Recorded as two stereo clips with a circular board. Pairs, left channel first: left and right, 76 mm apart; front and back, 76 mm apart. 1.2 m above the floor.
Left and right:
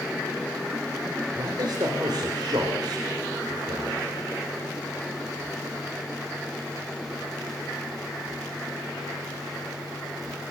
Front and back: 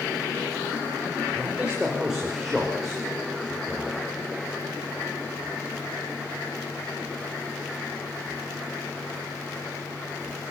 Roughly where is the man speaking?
Right.